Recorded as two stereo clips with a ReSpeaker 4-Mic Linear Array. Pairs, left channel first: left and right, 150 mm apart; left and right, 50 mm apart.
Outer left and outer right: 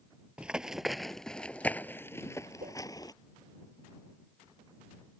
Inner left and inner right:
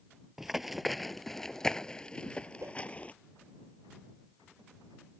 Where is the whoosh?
75° right (ahead or behind).